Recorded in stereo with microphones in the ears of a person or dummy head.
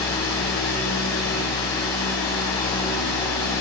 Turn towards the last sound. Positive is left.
turn(degrees=30)  # may be behind; listen again after turning